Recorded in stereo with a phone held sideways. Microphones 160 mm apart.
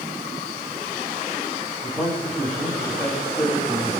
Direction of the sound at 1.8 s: 5° left (ahead or behind).